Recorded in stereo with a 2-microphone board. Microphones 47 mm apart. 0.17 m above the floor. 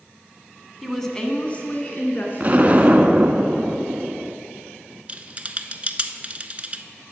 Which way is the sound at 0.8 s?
Centre (ahead or behind).